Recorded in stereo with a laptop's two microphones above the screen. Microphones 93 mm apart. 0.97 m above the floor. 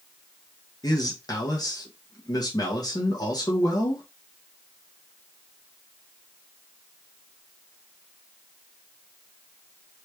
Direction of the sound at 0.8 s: 45° left (ahead or behind).